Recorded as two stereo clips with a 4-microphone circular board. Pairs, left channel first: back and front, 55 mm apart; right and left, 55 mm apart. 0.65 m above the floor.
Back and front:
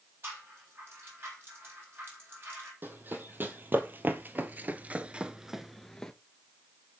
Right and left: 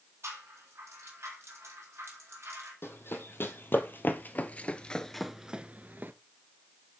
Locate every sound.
0.2 s a rattle: 50° left, 4 m
2.8 s running footsteps: 50° right, 1.7 m; by 6.1 s 110° left, 0.7 m